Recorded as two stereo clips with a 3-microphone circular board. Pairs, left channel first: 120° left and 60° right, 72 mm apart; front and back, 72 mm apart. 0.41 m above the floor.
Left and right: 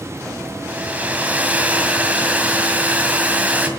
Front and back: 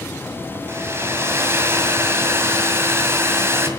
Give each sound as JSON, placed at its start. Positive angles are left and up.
{"t": 0.7, "sound": "a hair dryer", "azimuth_deg": -130, "distance_m": 2.0}